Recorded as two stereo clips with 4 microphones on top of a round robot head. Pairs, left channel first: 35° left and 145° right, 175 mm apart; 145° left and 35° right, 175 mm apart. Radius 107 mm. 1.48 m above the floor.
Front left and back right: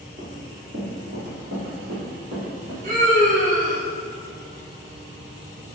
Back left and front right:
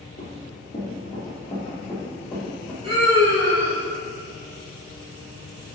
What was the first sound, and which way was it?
Running footsteps, 175° right.